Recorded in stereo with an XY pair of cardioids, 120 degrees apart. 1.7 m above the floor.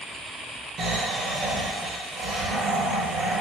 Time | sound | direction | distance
0.8 | snoring | 60° right | 1.5 m